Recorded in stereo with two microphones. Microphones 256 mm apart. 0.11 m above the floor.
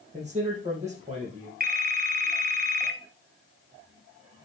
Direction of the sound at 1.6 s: 35° right (ahead or behind).